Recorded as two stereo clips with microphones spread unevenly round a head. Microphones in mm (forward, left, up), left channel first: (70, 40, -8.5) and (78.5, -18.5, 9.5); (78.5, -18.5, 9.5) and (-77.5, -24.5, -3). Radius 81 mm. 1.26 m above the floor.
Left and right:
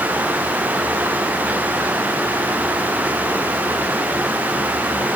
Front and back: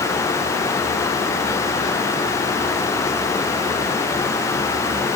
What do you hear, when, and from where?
Only background noise.